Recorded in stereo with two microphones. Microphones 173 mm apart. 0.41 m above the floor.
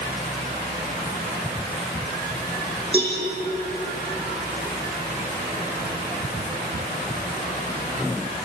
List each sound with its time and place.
2.9 s a cowbell: 35° right (ahead or behind), 9.5 m